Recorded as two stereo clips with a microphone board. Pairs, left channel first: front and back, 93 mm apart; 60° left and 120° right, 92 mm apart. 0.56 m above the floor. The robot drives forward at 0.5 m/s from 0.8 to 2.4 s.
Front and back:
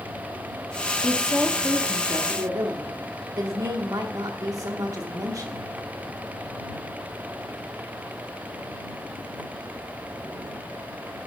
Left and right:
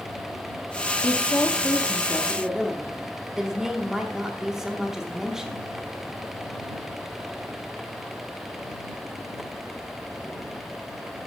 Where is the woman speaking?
75° left, 0.7 m; by 5.7 s 155° left, 0.9 m.